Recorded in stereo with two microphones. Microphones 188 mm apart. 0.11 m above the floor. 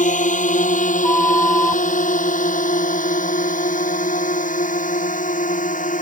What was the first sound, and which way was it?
A drone, 45° left (ahead or behind).